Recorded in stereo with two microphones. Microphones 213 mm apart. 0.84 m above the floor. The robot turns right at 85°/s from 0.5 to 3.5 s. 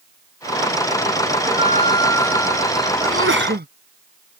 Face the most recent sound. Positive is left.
turn(degrees=-50)